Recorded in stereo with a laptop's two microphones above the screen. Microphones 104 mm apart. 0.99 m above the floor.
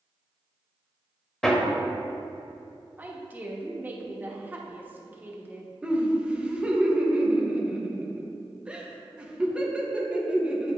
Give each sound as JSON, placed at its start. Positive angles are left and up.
{"t": 1.4, "sound": "hammering", "side_deg": 5, "distance_m": 0.7}
{"t": 3.0, "sound": "a woman speaking", "side_deg": -20, "distance_m": 1.0}
{"t": 5.8, "sound": "laughter", "side_deg": -10, "distance_m": 0.7}